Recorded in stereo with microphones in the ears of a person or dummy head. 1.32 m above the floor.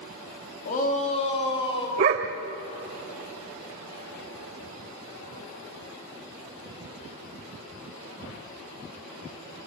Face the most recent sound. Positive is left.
turn(degrees=-25)  # may be behind; listen again after turning